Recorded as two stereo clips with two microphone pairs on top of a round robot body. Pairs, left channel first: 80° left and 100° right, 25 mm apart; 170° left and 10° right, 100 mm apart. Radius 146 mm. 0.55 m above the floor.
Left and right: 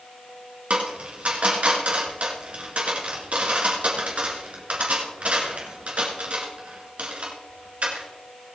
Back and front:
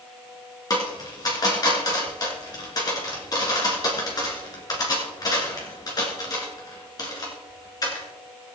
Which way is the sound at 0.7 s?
135° right.